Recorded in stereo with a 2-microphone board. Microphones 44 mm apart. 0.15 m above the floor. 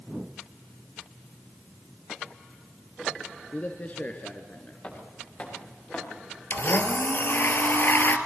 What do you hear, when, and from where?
3.5 s a man speaking: 35° left (ahead or behind), 2 m
4.8 s footsteps: 35° left (ahead or behind), 9.5 m; by 6.0 s 40° left (ahead or behind), 9 m
6.5 s a blender: 55° left (ahead or behind), 2 m